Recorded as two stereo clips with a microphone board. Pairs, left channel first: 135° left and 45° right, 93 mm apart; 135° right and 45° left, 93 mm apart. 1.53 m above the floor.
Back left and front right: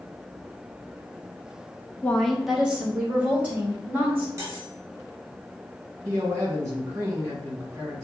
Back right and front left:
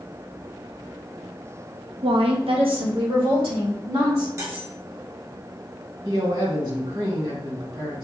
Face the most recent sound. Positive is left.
turn(degrees=15)